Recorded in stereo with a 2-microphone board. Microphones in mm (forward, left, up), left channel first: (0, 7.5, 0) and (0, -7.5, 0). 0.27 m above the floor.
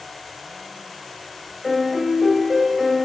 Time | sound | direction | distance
1.6 | a piano | 15° right (ahead or behind) | 0.5 m